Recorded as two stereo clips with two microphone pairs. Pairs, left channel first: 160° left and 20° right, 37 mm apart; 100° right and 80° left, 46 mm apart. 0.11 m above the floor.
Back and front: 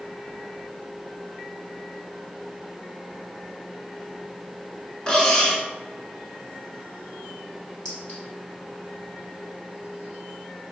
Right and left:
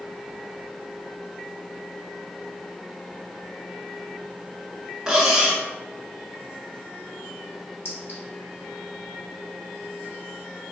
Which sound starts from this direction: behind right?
A clink, at 7.8 s.